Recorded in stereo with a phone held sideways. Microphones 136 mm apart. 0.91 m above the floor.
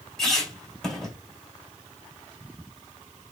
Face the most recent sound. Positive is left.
turn(degrees=5)  # may be behind; listen again after turning